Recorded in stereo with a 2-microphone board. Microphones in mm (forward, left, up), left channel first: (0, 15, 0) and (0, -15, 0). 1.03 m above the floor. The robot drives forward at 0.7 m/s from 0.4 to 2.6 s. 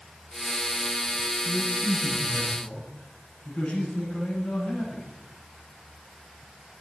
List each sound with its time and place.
1.4 s a man speaking: 50° left (ahead or behind), 9 m; by 5.1 s 45° left (ahead or behind), 9.5 m